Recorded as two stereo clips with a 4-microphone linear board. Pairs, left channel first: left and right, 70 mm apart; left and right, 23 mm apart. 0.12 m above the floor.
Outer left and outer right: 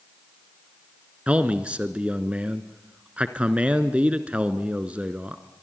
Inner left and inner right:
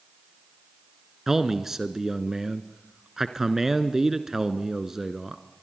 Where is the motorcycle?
I don't hear a motorcycle.